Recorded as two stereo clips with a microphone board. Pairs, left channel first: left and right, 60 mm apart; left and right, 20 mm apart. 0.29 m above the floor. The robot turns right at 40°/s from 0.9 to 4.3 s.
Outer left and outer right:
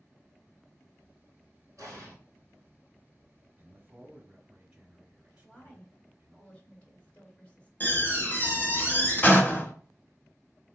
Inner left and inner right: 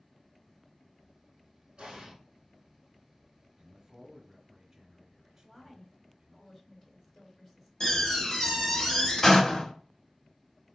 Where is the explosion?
60° right (ahead or behind), 2.5 m; by 2.1 s 45° right (ahead or behind), 2.5 m.